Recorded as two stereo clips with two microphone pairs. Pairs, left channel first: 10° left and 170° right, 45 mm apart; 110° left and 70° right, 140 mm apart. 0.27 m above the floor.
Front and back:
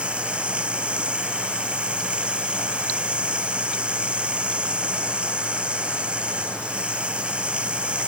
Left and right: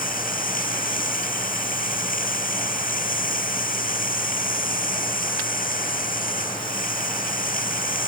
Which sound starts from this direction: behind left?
Running water, at 0.0 s.